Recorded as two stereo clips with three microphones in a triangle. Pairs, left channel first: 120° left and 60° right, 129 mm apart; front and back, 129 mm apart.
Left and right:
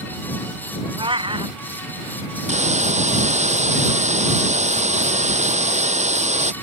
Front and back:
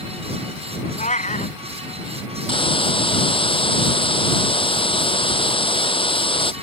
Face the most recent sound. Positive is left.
turn(degrees=-40)